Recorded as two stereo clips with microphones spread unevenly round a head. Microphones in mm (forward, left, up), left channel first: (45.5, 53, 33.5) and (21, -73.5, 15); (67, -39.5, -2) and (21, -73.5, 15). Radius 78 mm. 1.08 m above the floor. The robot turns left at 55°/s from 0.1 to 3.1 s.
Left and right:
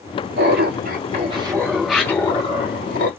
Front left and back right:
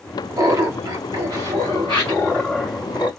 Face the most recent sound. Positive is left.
turn(degrees=100)